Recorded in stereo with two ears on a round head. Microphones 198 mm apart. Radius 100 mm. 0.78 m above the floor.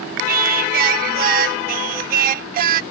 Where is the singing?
40° right (ahead or behind).